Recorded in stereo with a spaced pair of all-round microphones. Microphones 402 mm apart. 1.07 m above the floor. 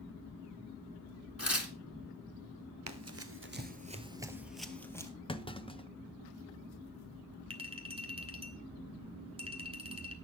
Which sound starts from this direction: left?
Tearing paper, at 1.4 s.